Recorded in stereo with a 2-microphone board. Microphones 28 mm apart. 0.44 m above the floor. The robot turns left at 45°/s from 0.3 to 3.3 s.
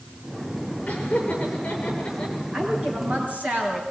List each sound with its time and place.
0.9 s laughter: 80° left, 8.5 m; by 2.4 s 30° left (ahead or behind), 8.5 m
2.5 s a woman speaking: 20° right, 5.5 m; by 3.8 s 55° right, 5.5 m